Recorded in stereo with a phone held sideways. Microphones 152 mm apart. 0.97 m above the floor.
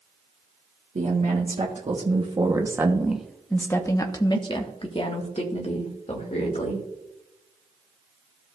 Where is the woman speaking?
50° right (ahead or behind), 1.5 m; by 6.8 s 50° left (ahead or behind), 2.5 m.